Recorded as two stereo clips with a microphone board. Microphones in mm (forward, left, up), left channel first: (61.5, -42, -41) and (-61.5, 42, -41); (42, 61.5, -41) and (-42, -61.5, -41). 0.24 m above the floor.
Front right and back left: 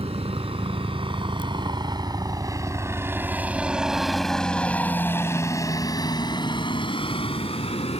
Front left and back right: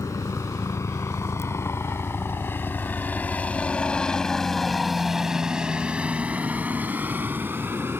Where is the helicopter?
115° left; by 8.0 s 55° right.